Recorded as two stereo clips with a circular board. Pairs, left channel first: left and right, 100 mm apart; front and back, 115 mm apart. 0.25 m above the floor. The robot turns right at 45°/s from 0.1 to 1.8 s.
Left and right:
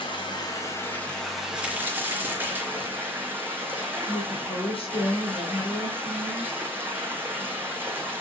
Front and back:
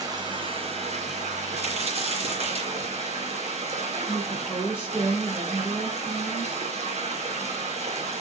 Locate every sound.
0.0 s running water: 125° left, 2.5 m; by 8.2 s 160° right, 2.5 m
1.6 s a crack: 170° right, 3.5 m; by 3.0 s 160° right, 3.5 m
4.1 s a woman speaking: 95° left, 3 m